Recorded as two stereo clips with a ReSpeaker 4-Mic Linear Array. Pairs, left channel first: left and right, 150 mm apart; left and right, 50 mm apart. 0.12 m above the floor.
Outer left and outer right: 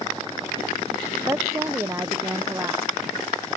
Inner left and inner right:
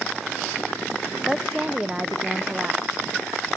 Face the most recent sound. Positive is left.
turn(degrees=-15)  # may be behind; listen again after turning